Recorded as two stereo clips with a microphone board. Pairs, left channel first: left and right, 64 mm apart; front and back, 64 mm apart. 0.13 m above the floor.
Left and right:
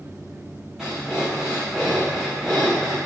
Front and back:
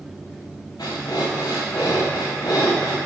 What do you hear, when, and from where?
0.8 s breathing: 5° right, 1.8 m